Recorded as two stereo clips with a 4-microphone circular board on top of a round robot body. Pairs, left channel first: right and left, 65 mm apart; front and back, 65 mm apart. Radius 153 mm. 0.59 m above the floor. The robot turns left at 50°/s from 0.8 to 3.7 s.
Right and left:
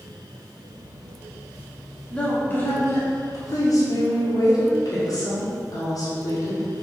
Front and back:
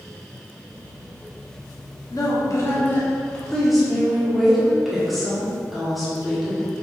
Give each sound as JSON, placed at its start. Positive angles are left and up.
{"t": 2.1, "sound": "a woman speaking", "azimuth_deg": -10, "distance_m": 2.0}